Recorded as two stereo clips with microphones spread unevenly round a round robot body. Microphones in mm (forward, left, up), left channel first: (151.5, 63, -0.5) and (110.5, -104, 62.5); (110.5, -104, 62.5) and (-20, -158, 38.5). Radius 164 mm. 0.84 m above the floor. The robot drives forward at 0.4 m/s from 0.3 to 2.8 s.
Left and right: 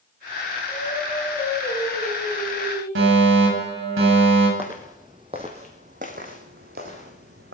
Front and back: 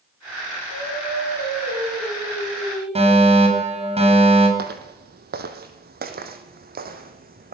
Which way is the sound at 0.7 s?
175° left.